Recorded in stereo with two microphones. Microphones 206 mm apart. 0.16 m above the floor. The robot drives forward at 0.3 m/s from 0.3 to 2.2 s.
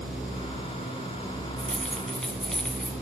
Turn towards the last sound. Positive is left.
turn(degrees=5)  # may be behind; listen again after turning